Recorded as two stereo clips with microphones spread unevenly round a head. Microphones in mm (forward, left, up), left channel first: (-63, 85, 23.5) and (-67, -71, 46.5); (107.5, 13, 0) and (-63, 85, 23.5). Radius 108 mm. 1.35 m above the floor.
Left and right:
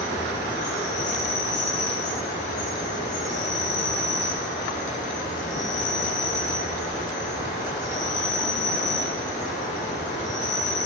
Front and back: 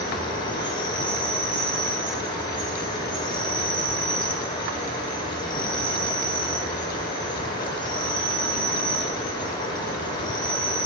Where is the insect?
45° left, 2 m.